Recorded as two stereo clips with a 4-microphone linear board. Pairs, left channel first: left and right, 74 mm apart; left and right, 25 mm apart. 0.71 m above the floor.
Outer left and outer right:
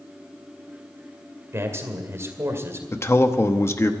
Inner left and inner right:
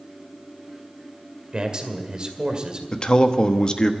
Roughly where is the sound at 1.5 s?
Right.